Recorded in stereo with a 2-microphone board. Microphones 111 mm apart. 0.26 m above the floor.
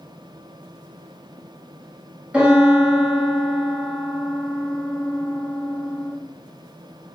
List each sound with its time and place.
2.3 s a piano: 10° right (ahead or behind), 1.4 m